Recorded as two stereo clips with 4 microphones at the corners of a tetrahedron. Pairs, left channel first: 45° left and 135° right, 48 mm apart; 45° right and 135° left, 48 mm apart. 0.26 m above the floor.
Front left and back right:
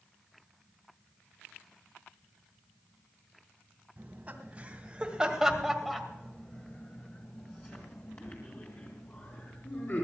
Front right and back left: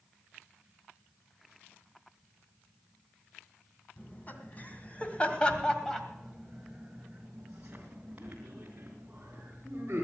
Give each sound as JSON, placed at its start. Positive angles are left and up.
{"t": 4.0, "sound": "laughter", "azimuth_deg": -90, "distance_m": 2.5}